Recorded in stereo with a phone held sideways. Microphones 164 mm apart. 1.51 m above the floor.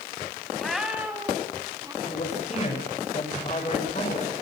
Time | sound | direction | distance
0.6 | a cat meowing | centre (ahead or behind) | 3 m
2.0 | a man speaking | 45° left (ahead or behind) | 6 m